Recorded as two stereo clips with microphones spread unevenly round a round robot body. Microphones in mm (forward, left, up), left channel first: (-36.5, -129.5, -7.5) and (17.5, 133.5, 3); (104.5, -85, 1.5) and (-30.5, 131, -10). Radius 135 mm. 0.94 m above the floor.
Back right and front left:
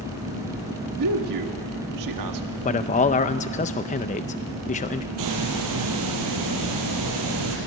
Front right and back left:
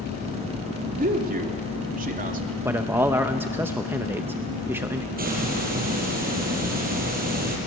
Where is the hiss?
65° left, 5 m.